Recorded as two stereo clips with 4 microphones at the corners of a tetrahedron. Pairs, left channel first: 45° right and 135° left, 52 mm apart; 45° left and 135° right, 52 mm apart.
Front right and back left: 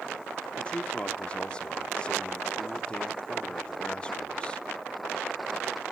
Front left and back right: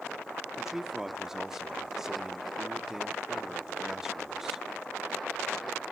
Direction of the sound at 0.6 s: 65° right.